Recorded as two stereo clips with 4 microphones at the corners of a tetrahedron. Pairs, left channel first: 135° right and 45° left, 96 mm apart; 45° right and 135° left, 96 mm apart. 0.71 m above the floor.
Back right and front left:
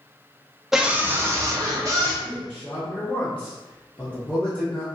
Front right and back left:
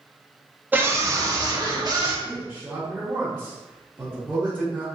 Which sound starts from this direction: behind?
A man speaking, at 2.2 s.